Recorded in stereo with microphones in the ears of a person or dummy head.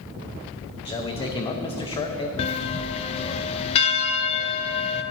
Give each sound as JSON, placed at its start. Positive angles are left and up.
{"t": 0.8, "sound": "a man speaking", "side_deg": 25, "distance_m": 1.0}
{"t": 2.4, "sound": "a bell", "side_deg": 30, "distance_m": 0.6}